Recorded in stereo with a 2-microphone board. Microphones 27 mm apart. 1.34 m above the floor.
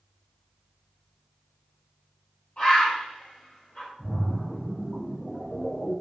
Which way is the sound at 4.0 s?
50° left (ahead or behind).